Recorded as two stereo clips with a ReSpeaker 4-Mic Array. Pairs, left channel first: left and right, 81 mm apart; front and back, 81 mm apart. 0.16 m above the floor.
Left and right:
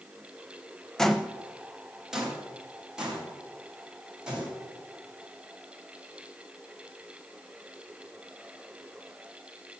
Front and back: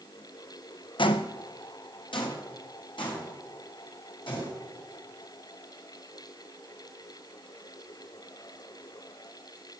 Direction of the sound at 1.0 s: 5° left.